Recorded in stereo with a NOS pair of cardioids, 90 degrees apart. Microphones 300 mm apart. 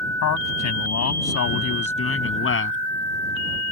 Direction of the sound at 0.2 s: 65° left.